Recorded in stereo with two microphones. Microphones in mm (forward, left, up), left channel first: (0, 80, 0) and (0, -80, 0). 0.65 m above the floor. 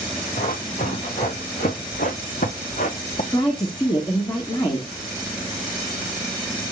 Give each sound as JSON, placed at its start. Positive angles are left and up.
{"t": 0.4, "sound": "running footsteps", "side_deg": 65, "distance_m": 3.0}
{"t": 3.3, "sound": "a woman speaking", "side_deg": 25, "distance_m": 1.7}